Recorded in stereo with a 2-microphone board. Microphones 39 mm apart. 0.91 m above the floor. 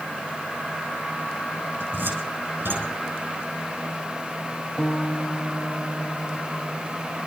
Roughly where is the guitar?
Centre.